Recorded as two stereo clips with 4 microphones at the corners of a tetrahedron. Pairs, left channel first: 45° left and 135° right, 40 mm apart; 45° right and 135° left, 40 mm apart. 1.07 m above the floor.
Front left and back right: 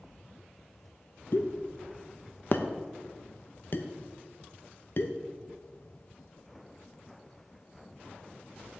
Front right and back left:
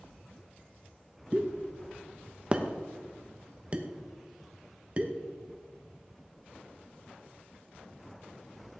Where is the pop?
75° left, 0.9 m.